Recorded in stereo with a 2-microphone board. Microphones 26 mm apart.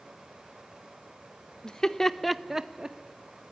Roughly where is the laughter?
Left.